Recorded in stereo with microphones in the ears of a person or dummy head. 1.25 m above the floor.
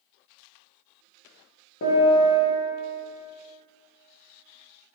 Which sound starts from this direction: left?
A piano, at 1.8 s.